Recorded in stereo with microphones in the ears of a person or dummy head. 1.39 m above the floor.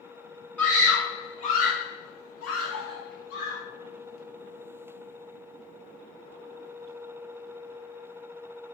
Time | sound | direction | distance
0.6 | a scream | 5° left (ahead or behind) | 1.0 m